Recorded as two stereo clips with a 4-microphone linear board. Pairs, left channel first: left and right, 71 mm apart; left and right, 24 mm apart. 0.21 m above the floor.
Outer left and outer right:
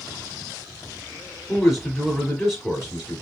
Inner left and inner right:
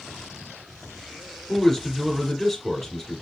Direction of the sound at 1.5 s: 5° left (ahead or behind).